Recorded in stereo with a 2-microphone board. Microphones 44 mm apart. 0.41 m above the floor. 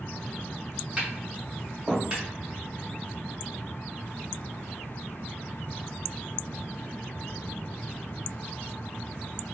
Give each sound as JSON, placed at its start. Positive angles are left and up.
{"t": 1.0, "sound": "tapping", "side_deg": -25, "distance_m": 1.3}